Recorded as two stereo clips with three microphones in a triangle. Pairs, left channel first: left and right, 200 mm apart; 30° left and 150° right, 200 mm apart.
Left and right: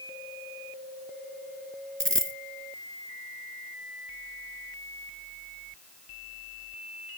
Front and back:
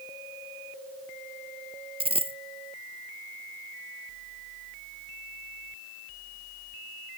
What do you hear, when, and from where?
2.0 s a dropped coin: 85° right